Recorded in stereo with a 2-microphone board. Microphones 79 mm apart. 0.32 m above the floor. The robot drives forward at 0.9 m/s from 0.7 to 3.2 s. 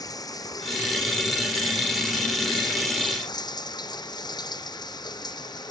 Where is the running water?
50° left (ahead or behind); by 5.7 s 60° left (ahead or behind).